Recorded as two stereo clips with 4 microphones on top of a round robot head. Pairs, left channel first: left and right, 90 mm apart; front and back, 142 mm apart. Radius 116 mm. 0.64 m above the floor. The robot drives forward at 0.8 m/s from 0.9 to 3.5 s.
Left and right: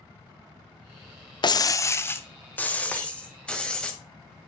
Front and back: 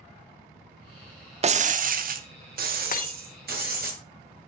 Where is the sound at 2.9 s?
15° left, 1.6 m.